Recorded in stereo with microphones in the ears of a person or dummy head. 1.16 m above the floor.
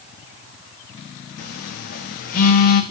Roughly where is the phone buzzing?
Left.